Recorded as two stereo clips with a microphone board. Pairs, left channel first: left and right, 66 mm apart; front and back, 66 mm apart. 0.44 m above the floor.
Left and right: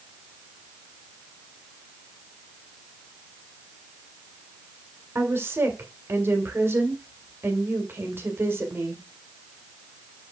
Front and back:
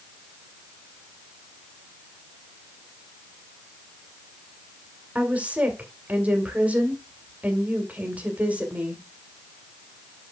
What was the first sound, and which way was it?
A woman speaking, 120° right.